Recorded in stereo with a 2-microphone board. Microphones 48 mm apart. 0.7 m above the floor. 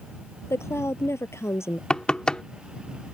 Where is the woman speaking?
60° left (ahead or behind).